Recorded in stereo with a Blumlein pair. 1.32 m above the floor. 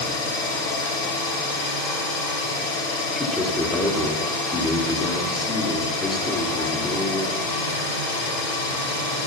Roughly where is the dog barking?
No dog barking in this recording.